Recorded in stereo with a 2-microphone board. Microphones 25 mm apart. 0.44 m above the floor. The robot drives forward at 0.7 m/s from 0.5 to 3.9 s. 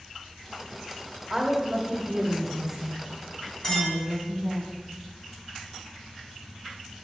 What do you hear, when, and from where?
1.3 s a woman speaking: 15° right (ahead or behind), 1.1 m; by 4.6 s 5° right (ahead or behind), 2.5 m
3.6 s a clink: 20° left (ahead or behind), 3 m